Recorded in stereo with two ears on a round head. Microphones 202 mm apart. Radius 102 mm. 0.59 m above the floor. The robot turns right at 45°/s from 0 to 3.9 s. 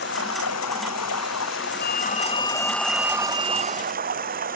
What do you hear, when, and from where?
0.0 s running water: 45° left; by 4.6 s 140° right
1.8 s a phone ringing: 135° left; by 3.9 s 130° right